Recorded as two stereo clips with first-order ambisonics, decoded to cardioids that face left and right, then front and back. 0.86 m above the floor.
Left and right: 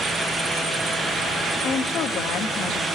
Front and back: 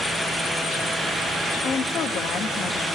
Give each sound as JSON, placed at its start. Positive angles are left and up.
{"t": 1.6, "sound": "a woman speaking", "azimuth_deg": 45, "distance_m": 1.3}